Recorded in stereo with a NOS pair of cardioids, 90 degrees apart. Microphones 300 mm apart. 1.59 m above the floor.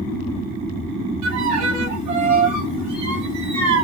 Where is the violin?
70° right, 1.7 m.